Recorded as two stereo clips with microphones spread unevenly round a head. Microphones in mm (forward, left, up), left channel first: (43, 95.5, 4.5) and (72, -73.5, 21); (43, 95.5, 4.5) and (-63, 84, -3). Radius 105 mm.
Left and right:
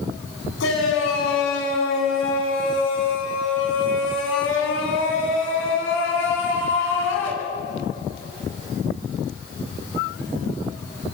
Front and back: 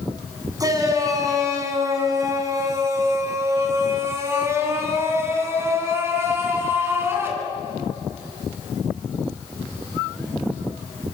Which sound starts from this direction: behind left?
A shout, at 0.6 s.